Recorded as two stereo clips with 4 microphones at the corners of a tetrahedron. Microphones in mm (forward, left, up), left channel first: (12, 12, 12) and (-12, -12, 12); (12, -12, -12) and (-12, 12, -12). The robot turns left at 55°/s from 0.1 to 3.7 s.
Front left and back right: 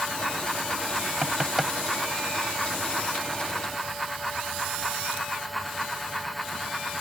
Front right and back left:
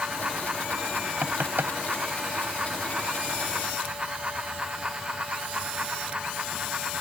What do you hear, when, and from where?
1.2 s knocking: 160° left; by 1.7 s 135° left